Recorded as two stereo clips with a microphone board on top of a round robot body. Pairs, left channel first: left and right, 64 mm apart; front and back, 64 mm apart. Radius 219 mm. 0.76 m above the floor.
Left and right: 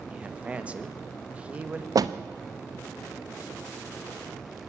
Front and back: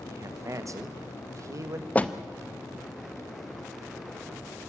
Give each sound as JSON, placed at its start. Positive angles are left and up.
{"t": 0.1, "sound": "a man speaking", "azimuth_deg": -155, "distance_m": 1.7}
{"t": 1.9, "sound": "a door slam", "azimuth_deg": -65, "distance_m": 1.0}